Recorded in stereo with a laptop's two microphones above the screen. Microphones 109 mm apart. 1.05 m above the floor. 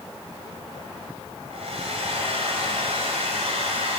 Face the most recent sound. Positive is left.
turn(degrees=-70)  # may be behind; listen again after turning